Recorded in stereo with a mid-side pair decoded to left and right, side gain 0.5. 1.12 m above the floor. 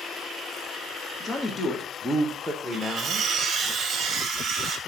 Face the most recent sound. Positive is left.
turn(degrees=-50)